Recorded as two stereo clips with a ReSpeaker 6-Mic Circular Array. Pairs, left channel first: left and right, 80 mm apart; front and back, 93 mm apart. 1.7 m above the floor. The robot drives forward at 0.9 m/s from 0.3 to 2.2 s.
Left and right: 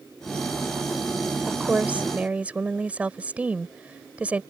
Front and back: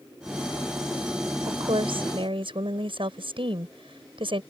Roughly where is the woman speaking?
Behind.